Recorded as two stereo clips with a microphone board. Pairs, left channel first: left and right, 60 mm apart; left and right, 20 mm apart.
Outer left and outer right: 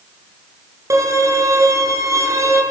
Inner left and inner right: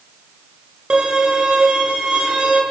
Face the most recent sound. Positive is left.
turn(degrees=-60)  # may be behind; listen again after turning